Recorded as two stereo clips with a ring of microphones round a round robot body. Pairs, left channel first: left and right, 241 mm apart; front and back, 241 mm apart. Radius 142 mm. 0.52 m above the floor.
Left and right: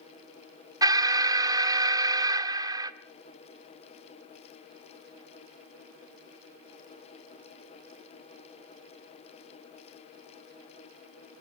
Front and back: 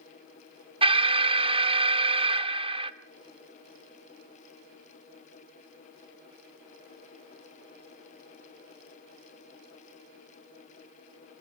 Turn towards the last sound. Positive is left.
turn(degrees=-145)